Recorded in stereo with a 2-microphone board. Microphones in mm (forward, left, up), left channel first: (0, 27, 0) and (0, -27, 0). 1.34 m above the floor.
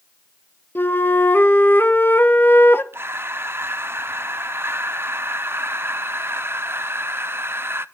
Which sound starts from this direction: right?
Breathing, at 2.9 s.